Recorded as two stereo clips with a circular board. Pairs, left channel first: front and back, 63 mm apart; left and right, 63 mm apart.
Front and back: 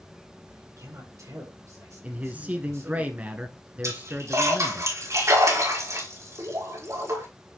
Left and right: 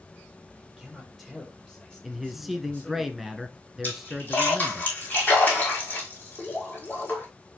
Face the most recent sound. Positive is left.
turn(degrees=150)